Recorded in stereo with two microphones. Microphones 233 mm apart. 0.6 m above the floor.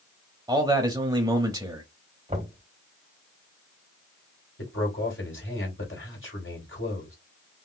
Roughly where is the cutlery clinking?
No cutlery clinking in this recording.